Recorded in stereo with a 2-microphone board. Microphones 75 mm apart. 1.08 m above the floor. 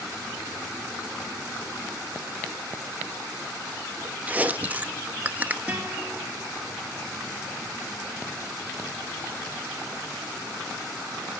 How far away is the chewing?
About 0.5 m.